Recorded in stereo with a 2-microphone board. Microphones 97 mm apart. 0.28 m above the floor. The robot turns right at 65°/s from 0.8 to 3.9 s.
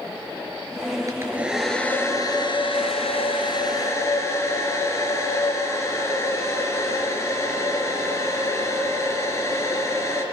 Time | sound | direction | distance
1.1 | a hair dryer | 35° right | 4 m